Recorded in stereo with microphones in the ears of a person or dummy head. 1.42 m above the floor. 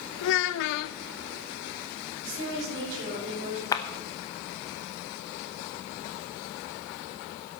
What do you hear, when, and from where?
0.2 s a child speaking: 55° left (ahead or behind), 0.5 m
2.2 s a woman speaking: 50° right (ahead or behind), 5.5 m
3.7 s a clap: 15° left (ahead or behind), 0.8 m